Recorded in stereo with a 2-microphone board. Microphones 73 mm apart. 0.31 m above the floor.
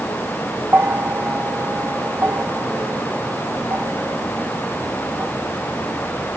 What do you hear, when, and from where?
0.7 s a bell: 30° right (ahead or behind)